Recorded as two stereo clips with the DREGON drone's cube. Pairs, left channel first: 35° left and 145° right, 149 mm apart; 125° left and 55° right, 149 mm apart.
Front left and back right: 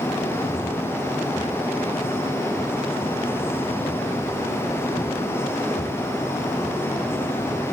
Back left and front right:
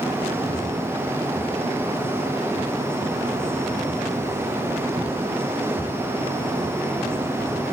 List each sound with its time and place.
Only background noise.